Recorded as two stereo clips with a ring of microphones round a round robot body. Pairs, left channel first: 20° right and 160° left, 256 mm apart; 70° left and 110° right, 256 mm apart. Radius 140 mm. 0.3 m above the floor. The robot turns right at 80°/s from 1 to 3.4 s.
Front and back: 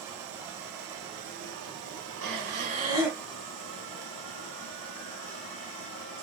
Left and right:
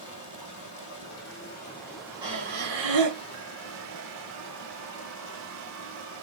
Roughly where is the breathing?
Behind.